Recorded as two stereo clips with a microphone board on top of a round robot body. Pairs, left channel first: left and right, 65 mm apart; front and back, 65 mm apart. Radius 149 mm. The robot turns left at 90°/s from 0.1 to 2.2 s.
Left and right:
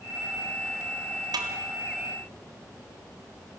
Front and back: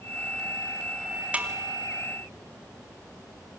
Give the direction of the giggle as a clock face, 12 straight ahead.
I don't hear a giggle.